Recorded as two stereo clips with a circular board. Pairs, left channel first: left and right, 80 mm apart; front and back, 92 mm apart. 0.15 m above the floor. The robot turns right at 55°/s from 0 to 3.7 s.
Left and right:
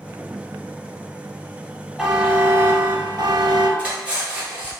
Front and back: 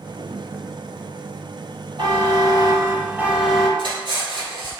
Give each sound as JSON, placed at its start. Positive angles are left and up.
{"t": 2.0, "sound": "a buzzer", "azimuth_deg": 180, "distance_m": 0.8}
{"t": 3.8, "sound": "cutlery clinking", "azimuth_deg": -160, "distance_m": 1.8}